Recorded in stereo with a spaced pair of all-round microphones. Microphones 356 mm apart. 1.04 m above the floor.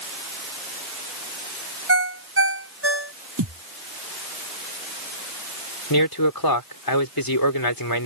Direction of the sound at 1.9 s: 40° right (ahead or behind).